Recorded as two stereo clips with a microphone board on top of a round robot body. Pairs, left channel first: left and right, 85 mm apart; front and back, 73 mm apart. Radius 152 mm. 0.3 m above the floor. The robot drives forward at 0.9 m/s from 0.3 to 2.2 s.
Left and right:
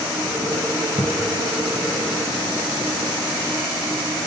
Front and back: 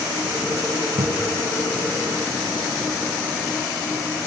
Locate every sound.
1.0 s a cupboard door: 150° left; by 1.4 s 155° left